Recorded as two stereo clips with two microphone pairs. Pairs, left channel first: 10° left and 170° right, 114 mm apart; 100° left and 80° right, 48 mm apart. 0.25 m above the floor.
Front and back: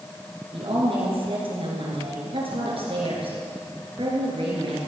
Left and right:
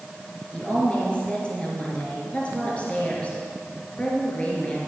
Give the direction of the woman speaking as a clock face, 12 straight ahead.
7 o'clock.